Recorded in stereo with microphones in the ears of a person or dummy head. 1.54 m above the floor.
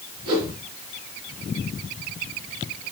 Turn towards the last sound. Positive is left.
turn(degrees=-25)  # may be behind; listen again after turning